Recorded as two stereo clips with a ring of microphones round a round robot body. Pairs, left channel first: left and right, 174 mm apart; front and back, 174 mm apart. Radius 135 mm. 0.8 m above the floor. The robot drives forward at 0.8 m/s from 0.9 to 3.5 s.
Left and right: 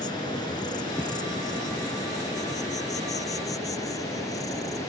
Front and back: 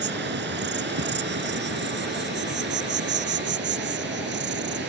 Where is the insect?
165° left.